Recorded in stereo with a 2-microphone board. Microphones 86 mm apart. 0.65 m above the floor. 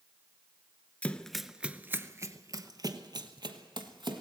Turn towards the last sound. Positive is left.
turn(degrees=-60)  # may be behind; listen again after turning